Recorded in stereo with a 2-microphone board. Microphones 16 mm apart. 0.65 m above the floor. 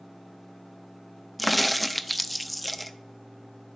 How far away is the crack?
About 0.6 m.